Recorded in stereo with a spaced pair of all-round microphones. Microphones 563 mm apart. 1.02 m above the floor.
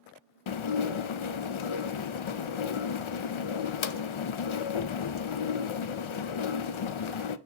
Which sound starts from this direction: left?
Dishes clattering, at 0.5 s.